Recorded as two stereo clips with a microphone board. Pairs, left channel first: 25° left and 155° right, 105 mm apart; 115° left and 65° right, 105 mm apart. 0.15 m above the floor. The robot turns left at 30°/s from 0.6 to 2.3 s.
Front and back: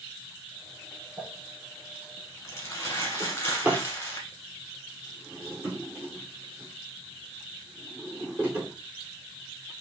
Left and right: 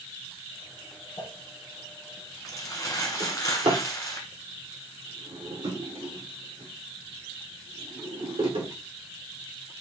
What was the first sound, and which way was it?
Crumpling, 110° left.